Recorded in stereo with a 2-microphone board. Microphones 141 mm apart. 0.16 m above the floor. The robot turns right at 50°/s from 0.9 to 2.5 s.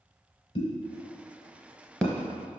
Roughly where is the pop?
Left.